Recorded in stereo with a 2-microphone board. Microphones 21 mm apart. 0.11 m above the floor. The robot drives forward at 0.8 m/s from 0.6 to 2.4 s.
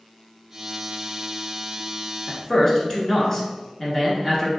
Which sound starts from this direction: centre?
A man speaking, at 2.3 s.